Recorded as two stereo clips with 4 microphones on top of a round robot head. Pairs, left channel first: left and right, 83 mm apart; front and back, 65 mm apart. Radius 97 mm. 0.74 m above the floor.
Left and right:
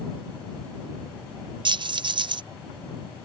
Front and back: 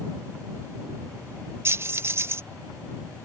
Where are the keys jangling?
125° right.